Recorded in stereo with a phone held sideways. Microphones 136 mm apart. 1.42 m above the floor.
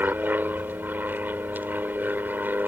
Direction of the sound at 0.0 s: 15° right (ahead or behind).